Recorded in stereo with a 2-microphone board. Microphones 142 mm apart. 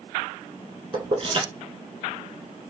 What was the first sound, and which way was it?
Keys jangling, 35° right (ahead or behind).